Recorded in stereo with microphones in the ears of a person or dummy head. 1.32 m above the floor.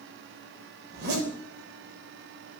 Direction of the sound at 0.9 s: 60° right (ahead or behind).